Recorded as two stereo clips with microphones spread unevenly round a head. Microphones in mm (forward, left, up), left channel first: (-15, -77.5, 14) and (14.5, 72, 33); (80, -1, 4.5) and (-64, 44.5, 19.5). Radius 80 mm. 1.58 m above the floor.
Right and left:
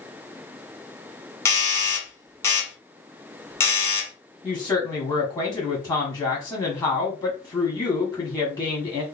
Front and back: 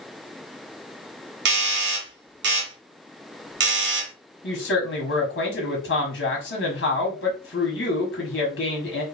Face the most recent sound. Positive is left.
turn(degrees=-25)